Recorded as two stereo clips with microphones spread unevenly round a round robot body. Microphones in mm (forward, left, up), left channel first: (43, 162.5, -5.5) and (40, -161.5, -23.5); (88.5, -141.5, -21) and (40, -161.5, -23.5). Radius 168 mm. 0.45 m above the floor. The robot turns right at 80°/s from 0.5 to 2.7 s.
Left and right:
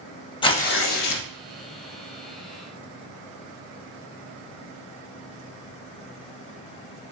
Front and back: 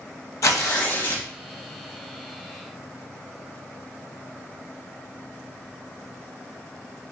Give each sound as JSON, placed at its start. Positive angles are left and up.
{"t": 0.4, "sound": "tearing paper", "azimuth_deg": 15, "distance_m": 0.7}